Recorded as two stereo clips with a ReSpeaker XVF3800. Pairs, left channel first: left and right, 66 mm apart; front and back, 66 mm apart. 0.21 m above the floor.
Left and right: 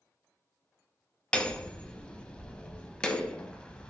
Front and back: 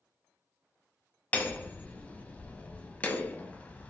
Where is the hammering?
35° left, 0.5 m.